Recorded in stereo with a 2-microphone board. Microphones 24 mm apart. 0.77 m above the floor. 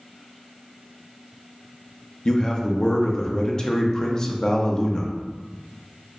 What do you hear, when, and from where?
2.2 s a man speaking: 30° left (ahead or behind), 0.6 m